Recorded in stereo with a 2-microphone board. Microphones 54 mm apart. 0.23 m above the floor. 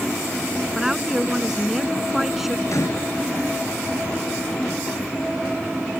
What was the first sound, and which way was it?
A woman speaking, 5° right (ahead or behind).